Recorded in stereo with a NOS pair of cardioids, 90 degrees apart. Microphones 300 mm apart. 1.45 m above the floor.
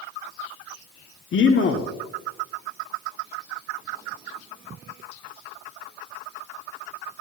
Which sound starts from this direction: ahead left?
A man speaking, at 1.3 s.